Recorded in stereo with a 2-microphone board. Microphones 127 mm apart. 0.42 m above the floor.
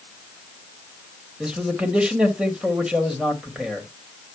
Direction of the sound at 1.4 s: 5° right (ahead or behind).